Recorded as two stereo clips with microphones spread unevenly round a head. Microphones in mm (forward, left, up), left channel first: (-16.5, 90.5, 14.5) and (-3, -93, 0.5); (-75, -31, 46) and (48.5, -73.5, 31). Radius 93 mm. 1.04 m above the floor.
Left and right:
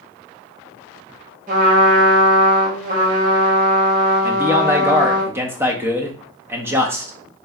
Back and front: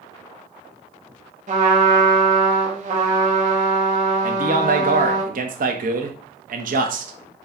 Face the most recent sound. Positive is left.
turn(degrees=-10)